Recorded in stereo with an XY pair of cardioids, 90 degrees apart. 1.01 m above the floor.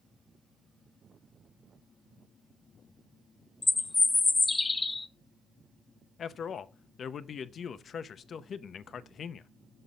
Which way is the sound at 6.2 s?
60° left.